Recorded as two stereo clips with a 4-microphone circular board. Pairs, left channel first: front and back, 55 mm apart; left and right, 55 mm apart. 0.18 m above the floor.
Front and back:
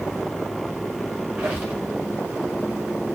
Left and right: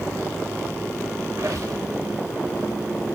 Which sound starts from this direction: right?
A squeak, at 1.4 s.